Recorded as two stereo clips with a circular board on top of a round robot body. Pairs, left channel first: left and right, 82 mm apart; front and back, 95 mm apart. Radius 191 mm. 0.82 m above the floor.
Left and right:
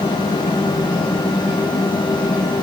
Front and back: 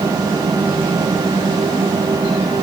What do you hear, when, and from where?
Only background noise.